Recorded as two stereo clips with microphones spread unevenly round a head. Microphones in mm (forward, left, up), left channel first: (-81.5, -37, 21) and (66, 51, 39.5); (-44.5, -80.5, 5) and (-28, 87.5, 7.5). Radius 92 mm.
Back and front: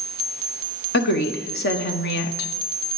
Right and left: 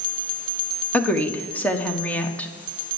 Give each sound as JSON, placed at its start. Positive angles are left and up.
{"t": 0.9, "sound": "a woman speaking", "azimuth_deg": -175, "distance_m": 1.5}